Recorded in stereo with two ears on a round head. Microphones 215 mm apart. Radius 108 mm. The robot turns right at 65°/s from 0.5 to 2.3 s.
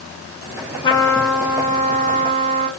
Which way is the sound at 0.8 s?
145° left.